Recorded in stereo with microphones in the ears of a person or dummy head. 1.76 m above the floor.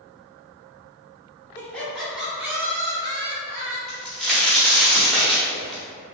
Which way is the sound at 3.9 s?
5° right (ahead or behind).